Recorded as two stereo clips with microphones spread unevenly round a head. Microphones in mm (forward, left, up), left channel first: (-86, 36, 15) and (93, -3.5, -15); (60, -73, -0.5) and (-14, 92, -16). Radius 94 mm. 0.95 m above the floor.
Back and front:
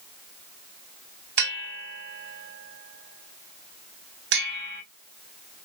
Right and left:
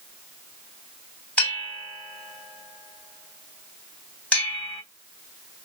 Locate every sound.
1.4 s a bell: 15° left, 3 m